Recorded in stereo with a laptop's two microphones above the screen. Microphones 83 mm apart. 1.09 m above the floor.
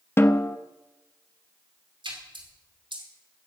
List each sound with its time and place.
0.2 s a snare drum: 25° left (ahead or behind), 0.8 m
2.0 s a splash: 70° right (ahead or behind), 2.5 m